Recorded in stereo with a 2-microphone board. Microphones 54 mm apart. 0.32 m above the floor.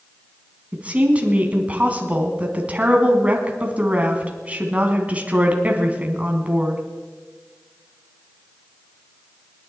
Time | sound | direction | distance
0.7 | a woman speaking | 30° right (ahead or behind) | 2.5 m